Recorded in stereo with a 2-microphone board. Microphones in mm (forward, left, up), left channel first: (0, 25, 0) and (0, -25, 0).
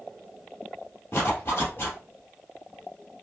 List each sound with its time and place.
1.1 s a zipper: 45° left (ahead or behind), 2.5 m